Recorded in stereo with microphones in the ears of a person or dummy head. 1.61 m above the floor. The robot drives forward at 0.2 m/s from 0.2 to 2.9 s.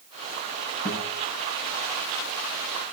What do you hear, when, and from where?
0.8 s a guitar: 45° left (ahead or behind), 9 m